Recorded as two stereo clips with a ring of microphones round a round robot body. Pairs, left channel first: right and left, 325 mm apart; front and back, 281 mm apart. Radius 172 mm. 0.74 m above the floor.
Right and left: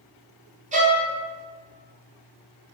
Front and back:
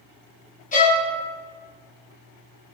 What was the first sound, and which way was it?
A violin, 40° left.